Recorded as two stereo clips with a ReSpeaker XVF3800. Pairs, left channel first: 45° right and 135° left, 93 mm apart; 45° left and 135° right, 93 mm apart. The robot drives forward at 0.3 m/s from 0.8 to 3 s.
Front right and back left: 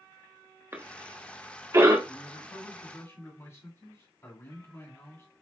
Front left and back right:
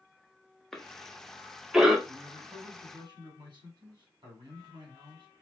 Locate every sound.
0.7 s a cough: 125° left, 1.3 m; by 2.0 s 145° left, 1.4 m
2.1 s a man speaking: 95° right, 2.5 m; by 5.3 s 100° right, 2.5 m